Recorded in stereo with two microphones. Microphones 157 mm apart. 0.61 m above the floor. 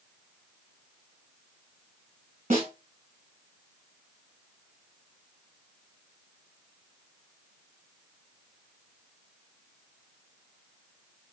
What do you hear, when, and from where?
2.5 s a snare drum: 55° right (ahead or behind), 1.7 m